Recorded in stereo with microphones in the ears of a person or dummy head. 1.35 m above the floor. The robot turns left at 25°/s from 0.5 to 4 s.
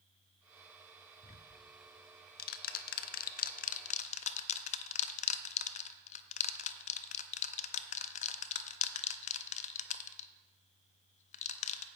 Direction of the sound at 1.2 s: 35° left (ahead or behind).